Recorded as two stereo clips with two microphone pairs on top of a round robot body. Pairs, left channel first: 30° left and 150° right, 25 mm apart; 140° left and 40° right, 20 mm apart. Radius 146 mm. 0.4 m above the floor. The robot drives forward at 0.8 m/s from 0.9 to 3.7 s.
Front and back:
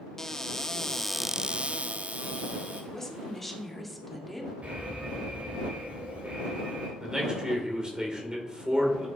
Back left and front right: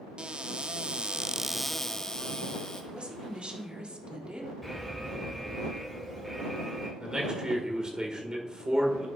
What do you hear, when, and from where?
0.2 s a cupboard door: 15° right, 0.6 m; by 2.8 s 175° right, 1.2 m
2.9 s a woman speaking: 25° right, 2 m; by 4.5 s 40° right, 1.7 m
4.6 s an alarm: 130° right, 3 m
7.0 s a man speaking: 85° right, 2.5 m